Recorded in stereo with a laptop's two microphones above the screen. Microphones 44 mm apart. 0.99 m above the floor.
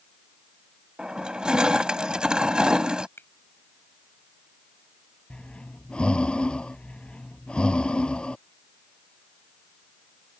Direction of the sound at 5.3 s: 20° left (ahead or behind).